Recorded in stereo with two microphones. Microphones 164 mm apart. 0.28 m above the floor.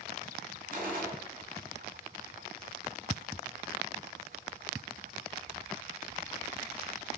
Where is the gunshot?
60° right (ahead or behind), 1.7 m.